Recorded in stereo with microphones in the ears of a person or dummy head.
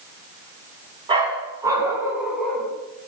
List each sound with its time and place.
1.1 s a dog barking: 25° right (ahead or behind), 4 m; by 2.7 s 5° left (ahead or behind), 3.5 m